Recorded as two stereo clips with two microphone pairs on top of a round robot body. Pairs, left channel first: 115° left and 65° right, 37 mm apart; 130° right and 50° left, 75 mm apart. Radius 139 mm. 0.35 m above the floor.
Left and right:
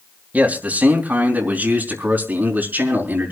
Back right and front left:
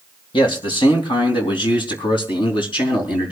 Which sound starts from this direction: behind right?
A man speaking, at 0.3 s.